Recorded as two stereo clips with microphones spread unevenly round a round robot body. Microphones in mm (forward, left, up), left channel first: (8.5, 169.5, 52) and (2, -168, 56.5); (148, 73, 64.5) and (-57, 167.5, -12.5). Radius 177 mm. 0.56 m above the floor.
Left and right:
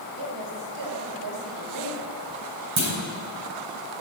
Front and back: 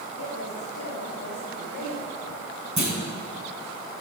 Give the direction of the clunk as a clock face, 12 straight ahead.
5 o'clock.